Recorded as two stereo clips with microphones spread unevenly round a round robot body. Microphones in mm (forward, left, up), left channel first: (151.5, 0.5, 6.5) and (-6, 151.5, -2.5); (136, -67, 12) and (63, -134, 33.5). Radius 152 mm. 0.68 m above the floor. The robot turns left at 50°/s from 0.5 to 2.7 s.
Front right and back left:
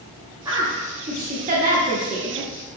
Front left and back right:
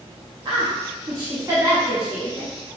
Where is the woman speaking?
155° right, 0.6 m; by 2.5 s 105° left, 0.6 m.